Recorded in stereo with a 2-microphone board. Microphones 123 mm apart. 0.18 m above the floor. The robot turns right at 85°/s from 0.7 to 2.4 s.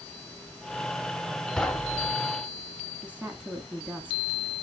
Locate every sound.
1.6 s knocking: 5° left (ahead or behind), 0.7 m; by 2.1 s 20° left (ahead or behind), 0.7 m
3.0 s a woman speaking: 10° right (ahead or behind), 1.3 m